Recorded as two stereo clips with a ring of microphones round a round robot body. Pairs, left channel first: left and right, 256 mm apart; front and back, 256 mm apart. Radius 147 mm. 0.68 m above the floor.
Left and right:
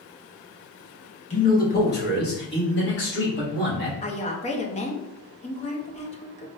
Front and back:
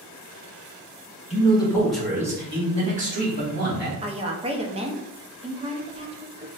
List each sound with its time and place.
1.3 s a man speaking: 45° left, 1.1 m; by 3.9 s 140° left, 2 m
4.0 s a woman speaking: 130° left, 0.6 m